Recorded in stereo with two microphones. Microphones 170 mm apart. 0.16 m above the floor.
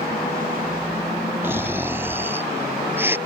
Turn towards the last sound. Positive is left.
turn(degrees=-15)  # may be behind; listen again after turning